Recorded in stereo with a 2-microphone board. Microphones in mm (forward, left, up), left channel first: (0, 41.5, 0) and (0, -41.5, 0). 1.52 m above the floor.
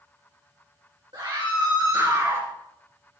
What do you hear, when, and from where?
1.1 s a scream: 75° right (ahead or behind), 2.5 m; by 2.5 s 35° right (ahead or behind), 2.5 m